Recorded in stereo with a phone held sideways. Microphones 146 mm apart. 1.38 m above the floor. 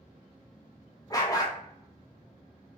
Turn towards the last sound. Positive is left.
turn(degrees=25)  # may be behind; listen again after turning